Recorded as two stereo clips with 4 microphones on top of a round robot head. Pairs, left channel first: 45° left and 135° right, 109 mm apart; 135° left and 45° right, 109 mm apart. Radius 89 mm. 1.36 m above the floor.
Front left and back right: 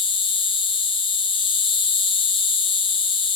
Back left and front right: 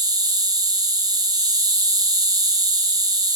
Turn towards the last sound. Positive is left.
turn(degrees=10)